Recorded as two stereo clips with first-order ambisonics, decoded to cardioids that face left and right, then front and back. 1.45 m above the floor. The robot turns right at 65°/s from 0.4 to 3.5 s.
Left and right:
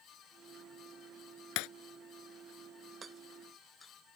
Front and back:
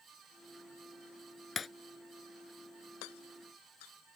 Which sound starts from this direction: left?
Breaking glass, at 1.6 s.